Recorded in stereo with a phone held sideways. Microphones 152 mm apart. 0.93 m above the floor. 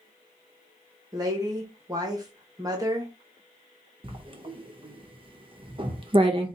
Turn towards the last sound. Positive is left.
turn(degrees=-35)  # may be behind; listen again after turning